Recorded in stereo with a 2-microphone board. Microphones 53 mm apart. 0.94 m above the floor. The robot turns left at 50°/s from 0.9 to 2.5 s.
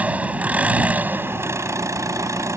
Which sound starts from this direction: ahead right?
An engine running, at 0.0 s.